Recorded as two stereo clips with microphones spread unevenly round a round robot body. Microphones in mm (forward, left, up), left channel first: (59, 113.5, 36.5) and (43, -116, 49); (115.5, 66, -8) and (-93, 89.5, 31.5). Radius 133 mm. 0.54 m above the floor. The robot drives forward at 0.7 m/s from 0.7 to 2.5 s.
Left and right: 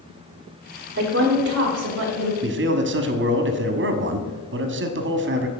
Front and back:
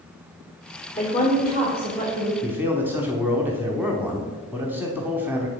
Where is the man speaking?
90° right, 1.0 m; by 5.5 s 95° right, 1.0 m.